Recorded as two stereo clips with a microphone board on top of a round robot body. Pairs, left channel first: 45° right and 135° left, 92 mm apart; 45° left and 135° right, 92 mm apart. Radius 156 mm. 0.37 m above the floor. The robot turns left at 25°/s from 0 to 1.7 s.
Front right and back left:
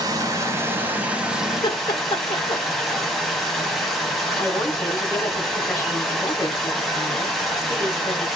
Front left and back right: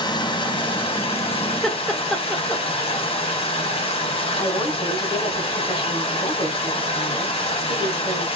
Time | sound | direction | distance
0.0 | running water | 85° left | 1.6 m
1.6 | laughter | 40° right | 1.4 m
4.4 | a woman speaking | 10° left | 3 m